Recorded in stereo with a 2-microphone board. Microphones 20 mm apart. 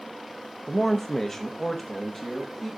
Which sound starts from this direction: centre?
A man speaking, at 0.7 s.